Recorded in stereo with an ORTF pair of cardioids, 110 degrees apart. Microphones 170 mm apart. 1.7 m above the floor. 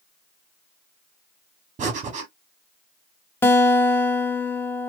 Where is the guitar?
15° left, 1.0 m.